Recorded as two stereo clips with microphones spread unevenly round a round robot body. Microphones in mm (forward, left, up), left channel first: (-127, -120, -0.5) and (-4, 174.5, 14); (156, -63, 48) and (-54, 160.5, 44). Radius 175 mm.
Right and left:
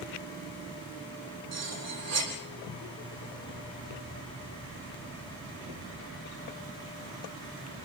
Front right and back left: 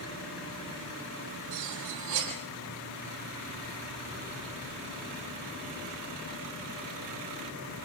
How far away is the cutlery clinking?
About 8.5 m.